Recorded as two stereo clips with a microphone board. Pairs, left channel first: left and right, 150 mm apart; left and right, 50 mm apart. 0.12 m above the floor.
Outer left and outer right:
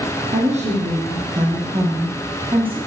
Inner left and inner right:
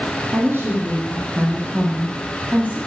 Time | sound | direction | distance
0.3 | a woman speaking | 50° right (ahead or behind) | 6 m